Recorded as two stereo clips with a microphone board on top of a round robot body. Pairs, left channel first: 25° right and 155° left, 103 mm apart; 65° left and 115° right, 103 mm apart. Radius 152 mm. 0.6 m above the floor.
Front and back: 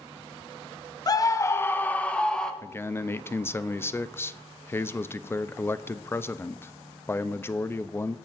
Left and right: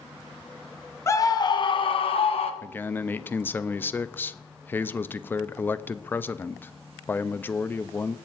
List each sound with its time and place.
1.1 s a scream: 15° left, 0.8 m; by 2.5 s 60° left, 1.4 m
2.6 s a man speaking: 20° left, 0.6 m